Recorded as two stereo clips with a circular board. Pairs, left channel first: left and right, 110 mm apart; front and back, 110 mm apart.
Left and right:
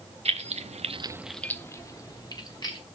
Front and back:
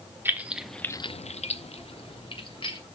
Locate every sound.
0.2 s keys jangling: 110° right, 1.2 m; by 2.8 s 40° left, 2.5 m